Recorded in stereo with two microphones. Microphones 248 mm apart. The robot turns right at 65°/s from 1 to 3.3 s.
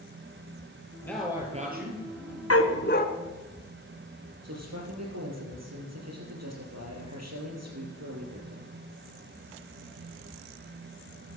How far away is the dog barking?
About 1.0 m.